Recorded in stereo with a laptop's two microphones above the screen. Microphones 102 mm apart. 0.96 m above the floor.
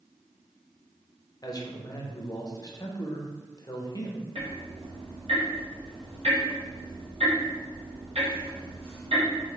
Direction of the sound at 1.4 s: 35° left (ahead or behind).